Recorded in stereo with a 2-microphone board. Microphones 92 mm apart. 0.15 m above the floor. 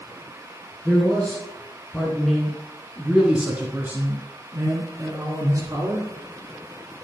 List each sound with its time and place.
0.8 s a man speaking: 10° left (ahead or behind), 3 m; by 6.1 s 40° right (ahead or behind), 2.5 m